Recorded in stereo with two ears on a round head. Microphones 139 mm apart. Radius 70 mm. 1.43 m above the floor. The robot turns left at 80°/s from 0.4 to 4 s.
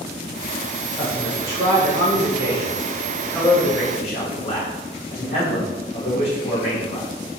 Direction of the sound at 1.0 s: 20° left.